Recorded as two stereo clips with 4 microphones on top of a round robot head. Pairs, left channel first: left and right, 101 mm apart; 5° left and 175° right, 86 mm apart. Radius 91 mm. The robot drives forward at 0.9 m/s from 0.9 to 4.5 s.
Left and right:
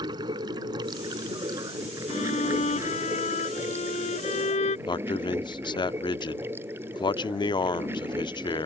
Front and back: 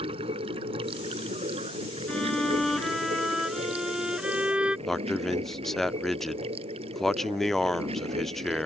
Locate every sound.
0.0 s running water: 145° right; by 8.7 s 160° right
2.1 s a violin: 85° left; by 4.8 s 105° left
4.9 s a man speaking: 90° left